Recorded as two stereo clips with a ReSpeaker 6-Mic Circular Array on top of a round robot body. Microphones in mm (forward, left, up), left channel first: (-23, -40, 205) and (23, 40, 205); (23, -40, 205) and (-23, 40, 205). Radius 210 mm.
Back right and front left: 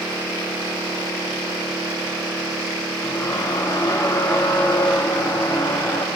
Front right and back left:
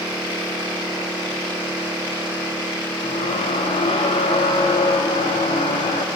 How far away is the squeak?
About 0.5 m.